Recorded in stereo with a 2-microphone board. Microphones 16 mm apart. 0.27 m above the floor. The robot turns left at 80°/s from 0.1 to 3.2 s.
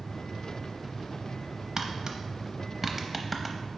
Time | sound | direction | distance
1.8 | tapping | 30° right (ahead or behind) | 0.8 m